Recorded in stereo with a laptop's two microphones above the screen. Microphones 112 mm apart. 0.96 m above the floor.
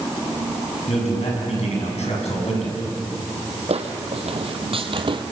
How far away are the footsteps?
About 2.5 m.